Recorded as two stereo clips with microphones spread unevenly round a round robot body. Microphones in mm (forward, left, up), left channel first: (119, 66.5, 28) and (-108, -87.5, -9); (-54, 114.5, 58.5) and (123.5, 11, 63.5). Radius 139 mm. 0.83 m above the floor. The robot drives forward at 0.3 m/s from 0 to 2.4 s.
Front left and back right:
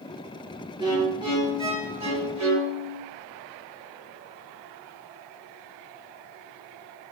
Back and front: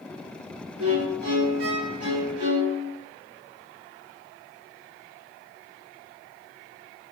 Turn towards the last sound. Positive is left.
turn(degrees=-75)